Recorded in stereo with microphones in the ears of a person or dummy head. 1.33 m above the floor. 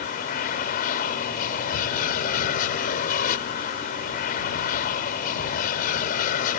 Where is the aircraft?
55° left (ahead or behind).